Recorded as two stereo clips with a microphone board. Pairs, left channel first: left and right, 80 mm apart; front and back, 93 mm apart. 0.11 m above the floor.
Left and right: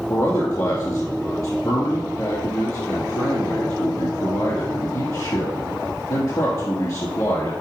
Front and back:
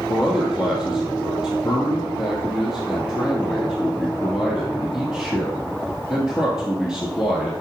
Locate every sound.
0.1 s a man speaking: 100° left, 1.7 m